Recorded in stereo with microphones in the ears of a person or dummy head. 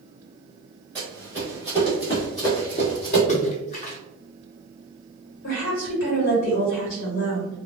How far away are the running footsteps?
About 1.9 m.